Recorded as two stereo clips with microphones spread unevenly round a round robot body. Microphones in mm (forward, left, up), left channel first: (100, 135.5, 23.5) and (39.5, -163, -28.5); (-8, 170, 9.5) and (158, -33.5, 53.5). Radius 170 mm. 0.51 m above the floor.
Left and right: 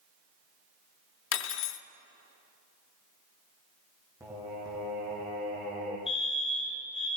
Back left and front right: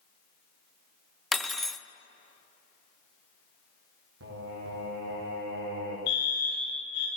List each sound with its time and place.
1.3 s cutlery clinking: 55° left, 0.5 m
4.2 s singing: 20° right, 5.5 m
6.1 s a fire alarm: 160° left, 3.5 m